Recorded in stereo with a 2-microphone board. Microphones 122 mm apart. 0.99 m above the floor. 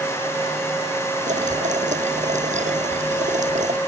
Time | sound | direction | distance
1.3 | boiling | 80° right | ?